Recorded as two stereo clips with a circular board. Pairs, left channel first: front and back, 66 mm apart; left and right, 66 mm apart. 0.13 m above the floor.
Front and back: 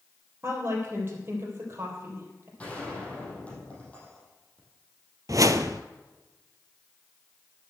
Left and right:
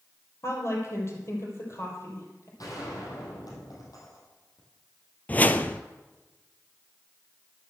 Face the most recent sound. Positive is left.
turn(degrees=150)